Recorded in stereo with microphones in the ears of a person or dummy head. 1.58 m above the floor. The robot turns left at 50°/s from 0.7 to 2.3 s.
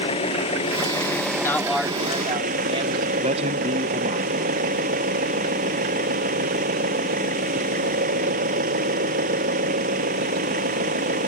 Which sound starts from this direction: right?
A man speaking, at 3.2 s.